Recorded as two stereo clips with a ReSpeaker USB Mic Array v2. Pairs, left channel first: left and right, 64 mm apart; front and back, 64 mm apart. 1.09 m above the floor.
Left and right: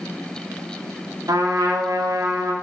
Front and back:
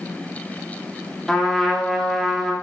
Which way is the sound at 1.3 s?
85° right.